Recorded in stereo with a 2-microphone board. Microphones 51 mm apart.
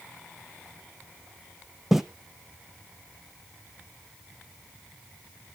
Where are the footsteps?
5° right (ahead or behind), 0.7 m.